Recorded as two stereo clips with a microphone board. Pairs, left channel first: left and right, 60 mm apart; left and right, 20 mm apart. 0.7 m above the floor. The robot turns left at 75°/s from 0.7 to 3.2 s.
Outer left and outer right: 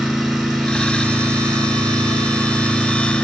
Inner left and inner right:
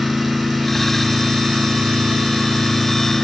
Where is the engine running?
10° right, 7 m; by 3.2 s 165° left, 7 m.